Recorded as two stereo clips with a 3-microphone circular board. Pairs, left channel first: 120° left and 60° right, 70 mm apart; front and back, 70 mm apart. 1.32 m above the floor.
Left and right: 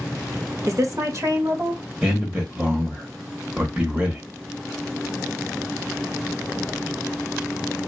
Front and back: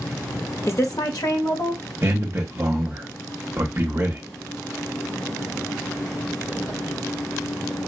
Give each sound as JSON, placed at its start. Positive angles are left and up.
{"t": 0.7, "sound": "a woman speaking", "azimuth_deg": -40, "distance_m": 0.8}
{"t": 2.0, "sound": "a man speaking", "azimuth_deg": -125, "distance_m": 0.8}